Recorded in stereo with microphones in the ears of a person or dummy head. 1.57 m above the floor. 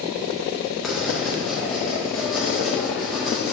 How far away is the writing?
About 1.7 m.